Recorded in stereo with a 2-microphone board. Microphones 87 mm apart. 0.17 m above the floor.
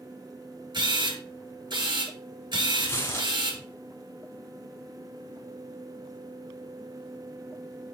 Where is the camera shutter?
60° right (ahead or behind), 3.5 m.